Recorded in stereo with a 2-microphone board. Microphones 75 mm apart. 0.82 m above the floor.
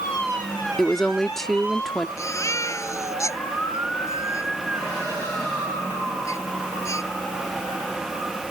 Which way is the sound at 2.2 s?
40° left (ahead or behind).